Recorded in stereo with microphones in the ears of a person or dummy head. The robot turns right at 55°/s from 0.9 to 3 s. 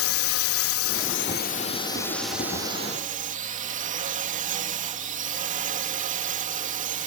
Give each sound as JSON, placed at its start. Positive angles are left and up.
{"t": 0.0, "sound": "a drone", "azimuth_deg": 100}